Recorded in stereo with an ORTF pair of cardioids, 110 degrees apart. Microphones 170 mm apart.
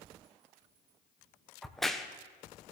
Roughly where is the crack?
Ahead.